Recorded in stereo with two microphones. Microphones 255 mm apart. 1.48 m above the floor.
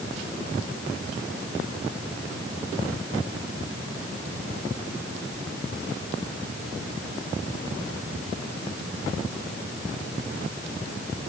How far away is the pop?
No pop in this recording.